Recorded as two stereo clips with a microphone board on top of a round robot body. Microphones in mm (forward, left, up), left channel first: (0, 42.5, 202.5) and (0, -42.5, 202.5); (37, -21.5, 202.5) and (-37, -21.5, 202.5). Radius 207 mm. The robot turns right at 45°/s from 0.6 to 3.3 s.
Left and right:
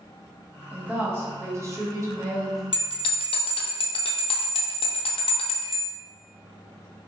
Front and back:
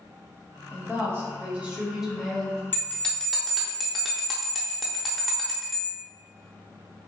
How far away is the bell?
About 0.5 m.